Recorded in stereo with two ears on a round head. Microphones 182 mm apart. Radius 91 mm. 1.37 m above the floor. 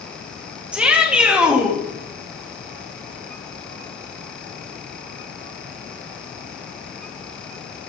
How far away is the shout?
About 2 m.